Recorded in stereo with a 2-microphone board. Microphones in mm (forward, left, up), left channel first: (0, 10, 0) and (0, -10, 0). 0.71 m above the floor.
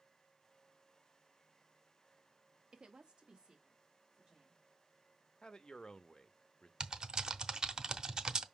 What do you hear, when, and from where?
2.7 s a woman speaking: 45° right (ahead or behind), 0.8 m; by 4.6 s 40° right (ahead or behind), 3 m
5.4 s a man speaking: 35° left (ahead or behind), 0.6 m
6.8 s typing on a keyboard: 40° right (ahead or behind), 0.6 m